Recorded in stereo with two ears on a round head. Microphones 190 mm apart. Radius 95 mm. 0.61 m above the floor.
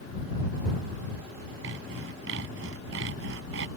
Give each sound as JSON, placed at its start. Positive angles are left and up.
{"t": 1.6, "sound": "sawing", "side_deg": -65}